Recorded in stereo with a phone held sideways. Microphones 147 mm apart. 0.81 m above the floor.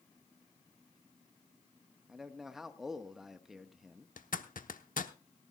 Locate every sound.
2.1 s a man speaking: centre (ahead or behind), 1.1 m
4.2 s a zipper: 80° left, 0.9 m